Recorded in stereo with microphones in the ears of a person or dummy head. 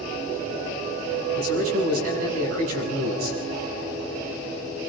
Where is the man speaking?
85° right, 8 m.